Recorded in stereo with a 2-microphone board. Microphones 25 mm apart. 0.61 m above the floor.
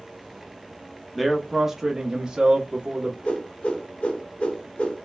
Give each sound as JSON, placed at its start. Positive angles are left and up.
{"t": 1.1, "sound": "a man speaking", "side_deg": 5, "distance_m": 0.8}
{"t": 3.2, "sound": "a whoosh", "side_deg": 70, "distance_m": 1.0}